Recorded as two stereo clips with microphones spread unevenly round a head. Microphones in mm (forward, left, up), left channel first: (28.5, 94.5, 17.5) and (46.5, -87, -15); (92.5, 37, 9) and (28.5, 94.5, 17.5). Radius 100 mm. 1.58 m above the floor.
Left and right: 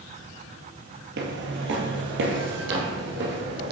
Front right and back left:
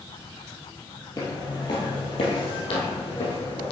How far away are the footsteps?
About 2 m.